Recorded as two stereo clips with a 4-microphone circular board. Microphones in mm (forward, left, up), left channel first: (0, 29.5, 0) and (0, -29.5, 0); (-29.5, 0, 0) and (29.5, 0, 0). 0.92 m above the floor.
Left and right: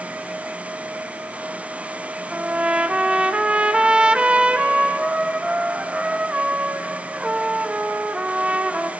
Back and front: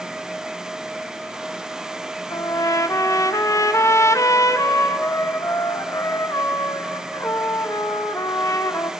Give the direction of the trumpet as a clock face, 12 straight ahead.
5 o'clock.